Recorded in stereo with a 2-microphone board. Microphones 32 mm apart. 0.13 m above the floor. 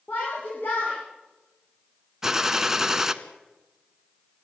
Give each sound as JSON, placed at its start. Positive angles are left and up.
{"t": 0.1, "sound": "a shout", "side_deg": 70, "distance_m": 8.5}
{"t": 2.2, "sound": "a gunshot", "side_deg": -15, "distance_m": 1.2}